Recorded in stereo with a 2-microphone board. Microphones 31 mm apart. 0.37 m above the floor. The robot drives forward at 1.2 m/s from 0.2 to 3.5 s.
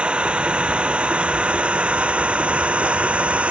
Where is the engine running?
40° right (ahead or behind); by 3.5 s 45° right (ahead or behind).